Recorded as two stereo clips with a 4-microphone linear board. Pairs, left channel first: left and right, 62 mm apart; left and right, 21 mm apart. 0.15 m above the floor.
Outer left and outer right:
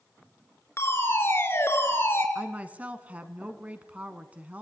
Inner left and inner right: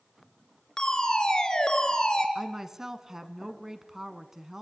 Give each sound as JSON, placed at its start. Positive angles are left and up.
{"t": 0.8, "sound": "a fire alarm", "side_deg": 40, "distance_m": 4.0}
{"t": 2.4, "sound": "a woman speaking", "side_deg": -25, "distance_m": 1.2}